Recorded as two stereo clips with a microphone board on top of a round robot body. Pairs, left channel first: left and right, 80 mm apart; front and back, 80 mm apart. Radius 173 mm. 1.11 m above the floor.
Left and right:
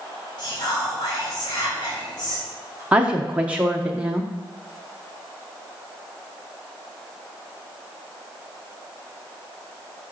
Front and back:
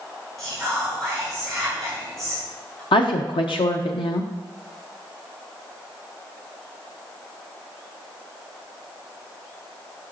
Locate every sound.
0.4 s whispering: 85° left, 3 m
2.9 s a woman speaking: 15° right, 0.6 m